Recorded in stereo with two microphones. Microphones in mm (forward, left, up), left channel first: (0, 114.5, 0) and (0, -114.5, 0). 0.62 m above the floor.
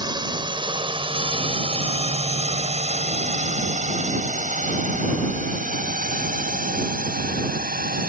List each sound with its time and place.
0.0 s a drone: 20° right (ahead or behind); by 8.1 s 40° right (ahead or behind)